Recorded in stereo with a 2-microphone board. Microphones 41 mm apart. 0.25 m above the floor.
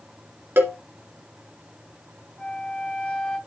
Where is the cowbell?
70° right (ahead or behind), 2.5 m.